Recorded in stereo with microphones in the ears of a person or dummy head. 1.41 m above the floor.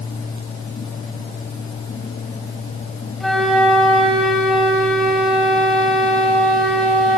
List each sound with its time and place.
3.2 s a flute: 5° left (ahead or behind), 4 m